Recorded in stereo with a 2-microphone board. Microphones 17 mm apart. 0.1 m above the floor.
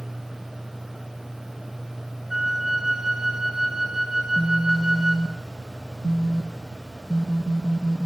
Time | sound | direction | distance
2.3 | a flute | 20° right (ahead or behind) | 4.5 m
4.2 | a phone buzzing | 45° right (ahead or behind) | 3 m